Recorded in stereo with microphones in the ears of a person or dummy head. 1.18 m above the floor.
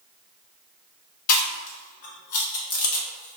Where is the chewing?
55° left (ahead or behind), 0.7 m.